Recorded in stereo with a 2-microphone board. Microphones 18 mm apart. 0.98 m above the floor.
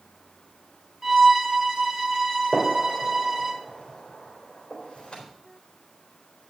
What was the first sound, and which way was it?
A violin, 25° right (ahead or behind).